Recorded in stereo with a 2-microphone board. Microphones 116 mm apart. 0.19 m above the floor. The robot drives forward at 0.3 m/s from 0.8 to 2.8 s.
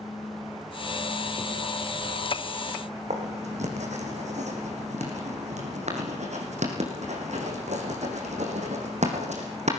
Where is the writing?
75° right (ahead or behind), 4.5 m.